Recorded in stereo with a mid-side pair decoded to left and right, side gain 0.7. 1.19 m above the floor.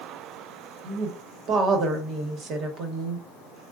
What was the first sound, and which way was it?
A woman speaking, 45° right.